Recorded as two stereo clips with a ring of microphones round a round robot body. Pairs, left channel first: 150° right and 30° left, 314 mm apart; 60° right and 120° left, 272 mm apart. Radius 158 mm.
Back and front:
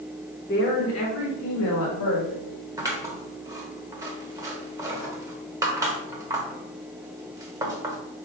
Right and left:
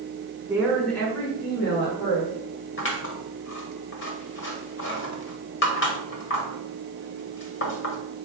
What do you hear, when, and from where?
0.5 s a woman speaking: 165° right, 0.9 m; by 2.7 s 120° right, 1.8 m
2.8 s scissors: 45° right, 1.0 m